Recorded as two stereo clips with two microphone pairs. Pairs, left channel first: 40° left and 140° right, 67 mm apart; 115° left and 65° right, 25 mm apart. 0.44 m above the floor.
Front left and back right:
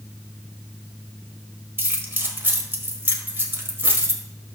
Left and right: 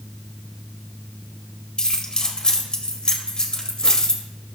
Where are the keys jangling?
175° left, 1.4 m.